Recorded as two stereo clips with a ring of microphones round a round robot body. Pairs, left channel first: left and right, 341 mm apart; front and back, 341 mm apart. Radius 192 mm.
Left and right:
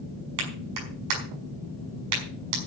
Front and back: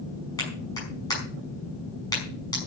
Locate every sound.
0.4 s a clap: 80° right, 5.5 m